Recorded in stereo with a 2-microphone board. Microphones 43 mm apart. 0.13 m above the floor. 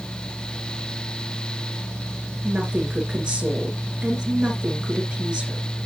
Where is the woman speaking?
20° right (ahead or behind), 2.5 m.